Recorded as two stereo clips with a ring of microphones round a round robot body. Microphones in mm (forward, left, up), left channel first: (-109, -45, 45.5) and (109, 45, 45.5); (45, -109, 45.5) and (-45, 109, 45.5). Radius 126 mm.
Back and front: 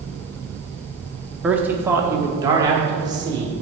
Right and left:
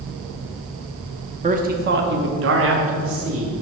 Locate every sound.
1.4 s a man speaking: 105° left, 0.8 m; by 3.6 s 95° left, 1.8 m